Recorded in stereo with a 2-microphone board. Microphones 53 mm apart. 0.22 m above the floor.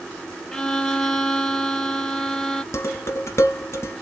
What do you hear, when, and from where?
0.5 s a violin: 5° left (ahead or behind), 0.6 m
2.7 s dishes clattering: 50° left (ahead or behind), 1.3 m